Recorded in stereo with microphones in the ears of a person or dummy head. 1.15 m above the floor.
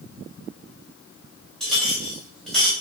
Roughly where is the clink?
Centre.